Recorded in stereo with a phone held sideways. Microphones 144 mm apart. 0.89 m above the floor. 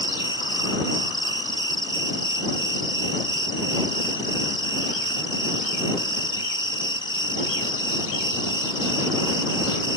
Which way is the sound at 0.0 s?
30° left (ahead or behind).